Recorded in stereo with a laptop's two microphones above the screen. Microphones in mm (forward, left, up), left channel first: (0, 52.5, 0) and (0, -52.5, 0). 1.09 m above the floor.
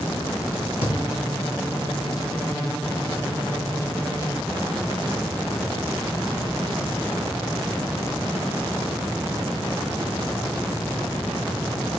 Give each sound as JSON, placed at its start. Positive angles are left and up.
{"t": 0.8, "sound": "a thud", "side_deg": 70, "distance_m": 3.5}